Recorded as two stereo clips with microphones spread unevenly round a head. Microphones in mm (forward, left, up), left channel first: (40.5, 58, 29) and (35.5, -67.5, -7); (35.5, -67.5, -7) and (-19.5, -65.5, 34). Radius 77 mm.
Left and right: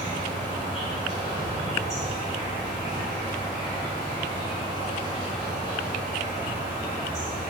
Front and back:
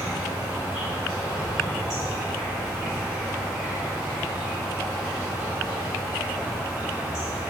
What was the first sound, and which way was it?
An insect, 160° left.